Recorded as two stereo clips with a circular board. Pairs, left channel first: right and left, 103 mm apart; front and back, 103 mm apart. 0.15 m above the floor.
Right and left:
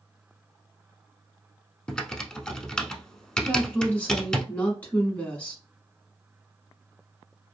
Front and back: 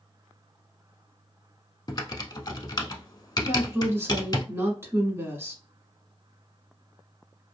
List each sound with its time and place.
1.9 s typing on a keyboard: 15° right, 0.6 m
3.4 s a woman speaking: 150° right, 1.1 m